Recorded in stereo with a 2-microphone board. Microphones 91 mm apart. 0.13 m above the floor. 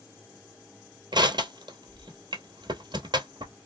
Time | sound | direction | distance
1.1 | crushing | 55° right (ahead or behind) | 0.8 m